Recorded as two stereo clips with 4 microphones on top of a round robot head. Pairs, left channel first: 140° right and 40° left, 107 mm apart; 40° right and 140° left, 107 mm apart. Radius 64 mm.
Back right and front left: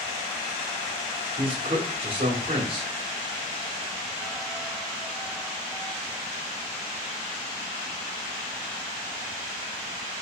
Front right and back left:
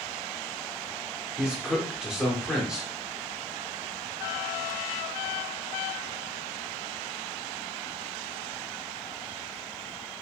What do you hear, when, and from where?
1.4 s a man speaking: 60° left, 1.3 m